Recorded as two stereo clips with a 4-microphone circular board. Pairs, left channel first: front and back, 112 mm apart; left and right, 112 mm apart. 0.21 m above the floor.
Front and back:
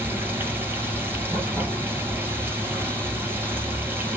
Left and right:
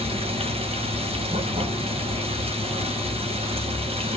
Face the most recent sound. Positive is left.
turn(degrees=-110)